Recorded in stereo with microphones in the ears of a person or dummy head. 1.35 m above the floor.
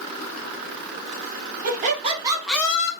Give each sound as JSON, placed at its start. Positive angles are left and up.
{"t": 1.6, "sound": "laughter", "side_deg": -45, "distance_m": 1.3}